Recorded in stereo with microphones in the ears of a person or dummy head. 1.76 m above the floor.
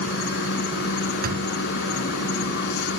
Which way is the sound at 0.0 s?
60° left (ahead or behind).